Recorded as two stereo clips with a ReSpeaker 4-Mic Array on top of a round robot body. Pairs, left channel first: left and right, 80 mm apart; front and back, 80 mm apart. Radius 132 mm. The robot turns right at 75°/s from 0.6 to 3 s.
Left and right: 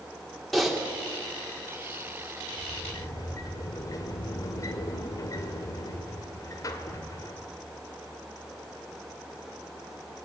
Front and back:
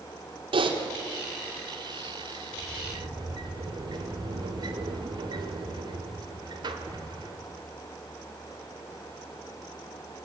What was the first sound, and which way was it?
Typing on a keyboard, straight behind.